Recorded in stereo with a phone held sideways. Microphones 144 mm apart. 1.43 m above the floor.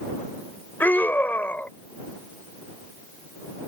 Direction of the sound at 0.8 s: 15° left (ahead or behind).